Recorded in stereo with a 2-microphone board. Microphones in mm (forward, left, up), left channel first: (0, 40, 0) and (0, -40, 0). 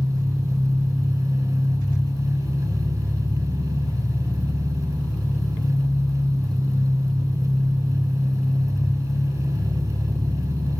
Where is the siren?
I don't hear a siren.